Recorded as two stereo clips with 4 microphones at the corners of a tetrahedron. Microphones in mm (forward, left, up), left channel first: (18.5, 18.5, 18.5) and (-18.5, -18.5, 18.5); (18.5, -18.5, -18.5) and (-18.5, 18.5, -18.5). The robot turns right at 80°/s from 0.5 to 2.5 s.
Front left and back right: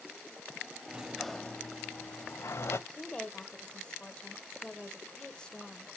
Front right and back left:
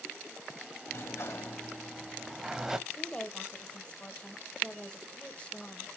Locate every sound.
0.9 s a sliding door: 70° right, 0.5 m; by 2.8 s 60° left, 0.5 m
2.9 s a woman speaking: 5° right, 1.0 m